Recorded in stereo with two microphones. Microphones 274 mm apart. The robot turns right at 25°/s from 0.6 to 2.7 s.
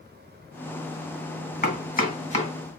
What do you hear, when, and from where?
1.6 s chopping: 35° left (ahead or behind), 1.9 m; by 2.5 s 25° left (ahead or behind), 1.9 m